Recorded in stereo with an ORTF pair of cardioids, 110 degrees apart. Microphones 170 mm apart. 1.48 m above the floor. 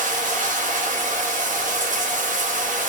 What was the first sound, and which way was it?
Running water, 50° right.